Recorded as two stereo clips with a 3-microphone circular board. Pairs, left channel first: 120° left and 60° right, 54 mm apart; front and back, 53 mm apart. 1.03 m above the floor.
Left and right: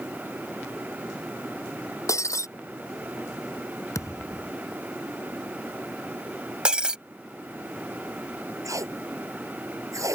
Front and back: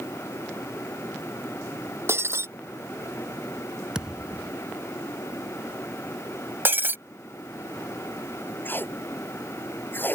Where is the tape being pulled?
50° right.